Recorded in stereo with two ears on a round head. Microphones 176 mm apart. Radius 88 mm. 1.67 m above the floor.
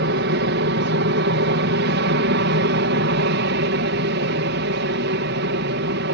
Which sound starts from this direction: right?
An aircraft, at 0.0 s.